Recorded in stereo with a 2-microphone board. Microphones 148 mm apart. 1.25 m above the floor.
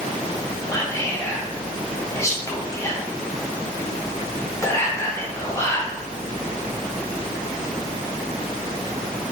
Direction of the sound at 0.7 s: 20° left (ahead or behind).